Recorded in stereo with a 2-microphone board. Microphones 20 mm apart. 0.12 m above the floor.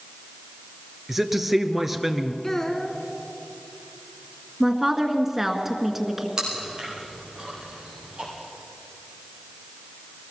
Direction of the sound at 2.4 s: 20° left (ahead or behind).